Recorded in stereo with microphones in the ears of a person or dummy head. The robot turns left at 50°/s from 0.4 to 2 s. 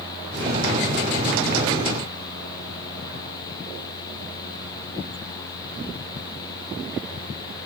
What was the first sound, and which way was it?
Only background noise.